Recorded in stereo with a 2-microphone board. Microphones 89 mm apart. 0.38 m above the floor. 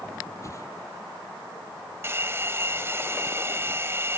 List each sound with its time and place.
0.4 s a whoosh: 35° left (ahead or behind)
2.0 s a hair dryer: 30° right (ahead or behind)